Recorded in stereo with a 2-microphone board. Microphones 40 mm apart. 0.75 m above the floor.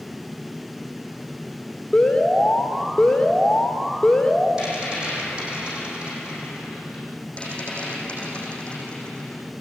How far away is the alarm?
About 3 m.